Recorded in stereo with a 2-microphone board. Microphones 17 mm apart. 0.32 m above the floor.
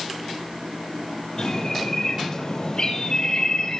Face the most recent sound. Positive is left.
turn(degrees=40)  # may be behind; listen again after turning